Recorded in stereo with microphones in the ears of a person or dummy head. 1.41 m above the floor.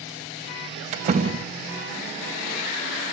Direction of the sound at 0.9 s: 35° right (ahead or behind).